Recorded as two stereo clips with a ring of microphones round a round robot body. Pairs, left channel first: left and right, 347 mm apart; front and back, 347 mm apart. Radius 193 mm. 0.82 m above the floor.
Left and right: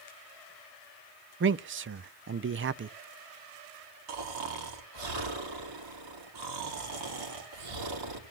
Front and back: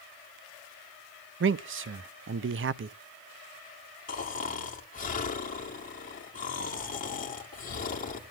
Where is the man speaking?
135° right, 0.6 m.